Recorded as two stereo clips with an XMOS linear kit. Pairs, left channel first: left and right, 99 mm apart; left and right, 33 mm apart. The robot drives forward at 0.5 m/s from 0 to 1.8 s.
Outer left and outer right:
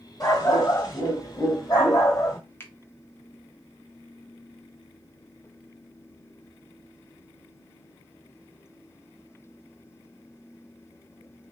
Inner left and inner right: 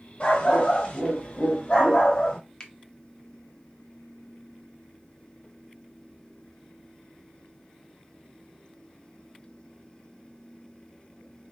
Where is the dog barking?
35° left (ahead or behind), 1.8 m; by 2.4 s 40° left (ahead or behind), 1.7 m.